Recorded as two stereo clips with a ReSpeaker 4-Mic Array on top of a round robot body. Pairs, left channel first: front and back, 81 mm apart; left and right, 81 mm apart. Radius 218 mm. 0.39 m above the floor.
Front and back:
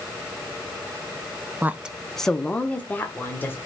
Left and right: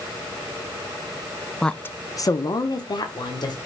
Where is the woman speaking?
165° left, 0.8 m; by 3.6 s 65° left, 2 m.